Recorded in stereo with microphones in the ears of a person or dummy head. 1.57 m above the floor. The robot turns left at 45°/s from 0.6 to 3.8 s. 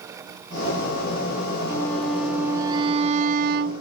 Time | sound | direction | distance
1.7 | a violin | 20° left | ?